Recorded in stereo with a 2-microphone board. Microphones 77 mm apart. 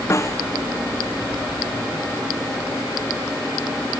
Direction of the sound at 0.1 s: 35° left (ahead or behind).